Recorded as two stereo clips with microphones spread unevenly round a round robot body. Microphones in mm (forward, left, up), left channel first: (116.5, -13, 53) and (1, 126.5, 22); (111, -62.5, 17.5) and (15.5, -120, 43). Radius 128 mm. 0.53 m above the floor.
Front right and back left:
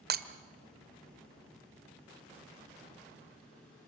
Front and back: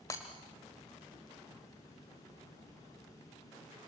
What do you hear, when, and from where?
0.1 s breaking glass: 100° left, 1.1 m